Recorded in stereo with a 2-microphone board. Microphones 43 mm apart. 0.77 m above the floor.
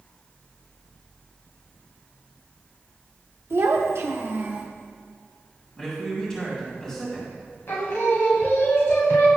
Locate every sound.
3.5 s a child speaking: 65° right (ahead or behind), 0.9 m; by 4.7 s 35° right (ahead or behind), 0.9 m
5.8 s a man speaking: 15° left (ahead or behind), 2 m
7.7 s singing: 60° left (ahead or behind), 1.2 m